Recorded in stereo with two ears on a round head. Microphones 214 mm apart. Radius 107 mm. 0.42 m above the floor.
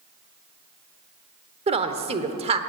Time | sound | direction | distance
1.7 | a woman speaking | 25° right (ahead or behind) | 1.1 m